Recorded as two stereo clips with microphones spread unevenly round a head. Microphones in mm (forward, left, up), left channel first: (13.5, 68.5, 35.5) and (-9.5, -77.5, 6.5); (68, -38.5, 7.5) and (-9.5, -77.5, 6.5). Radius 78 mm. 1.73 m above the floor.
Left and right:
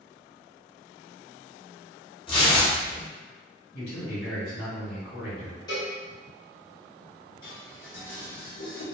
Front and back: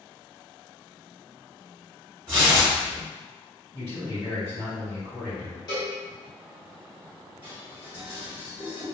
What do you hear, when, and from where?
2.3 s tearing paper: 135° left, 0.8 m
3.7 s a man speaking: 90° left, 1.9 m
5.7 s a cowbell: 35° left, 0.8 m
7.4 s dishes clattering: 85° left, 1.4 m